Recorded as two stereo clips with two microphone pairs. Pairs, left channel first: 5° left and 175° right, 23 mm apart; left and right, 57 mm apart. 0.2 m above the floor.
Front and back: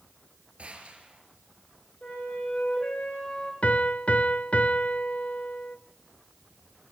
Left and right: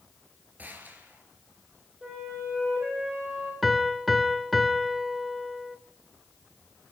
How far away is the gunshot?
About 4.5 m.